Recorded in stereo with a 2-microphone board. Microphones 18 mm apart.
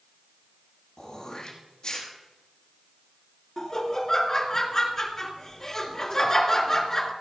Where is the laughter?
30° left (ahead or behind), 1.7 m.